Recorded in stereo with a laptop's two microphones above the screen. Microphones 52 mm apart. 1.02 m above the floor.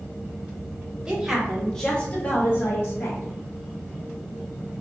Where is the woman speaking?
20° right (ahead or behind), 0.8 m; by 3.4 s 60° left (ahead or behind), 1.0 m.